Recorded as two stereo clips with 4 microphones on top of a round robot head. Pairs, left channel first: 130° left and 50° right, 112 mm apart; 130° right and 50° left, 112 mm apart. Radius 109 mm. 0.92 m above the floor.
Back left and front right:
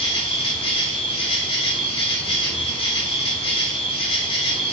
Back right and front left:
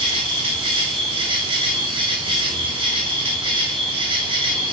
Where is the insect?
90° left, 2.5 m.